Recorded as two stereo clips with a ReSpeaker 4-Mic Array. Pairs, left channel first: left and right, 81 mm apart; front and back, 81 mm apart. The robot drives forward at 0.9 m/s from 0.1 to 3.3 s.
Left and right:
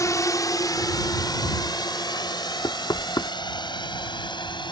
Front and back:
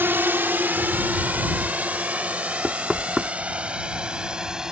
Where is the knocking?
85° left; by 3.3 s 110° left.